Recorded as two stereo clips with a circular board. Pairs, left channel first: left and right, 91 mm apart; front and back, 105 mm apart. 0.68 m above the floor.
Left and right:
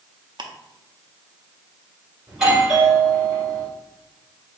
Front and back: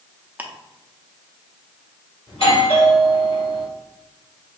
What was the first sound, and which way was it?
Ticking, 110° right.